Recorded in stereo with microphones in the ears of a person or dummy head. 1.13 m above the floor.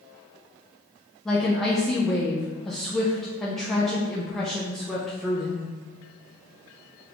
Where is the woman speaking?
Centre (ahead or behind), 0.5 m.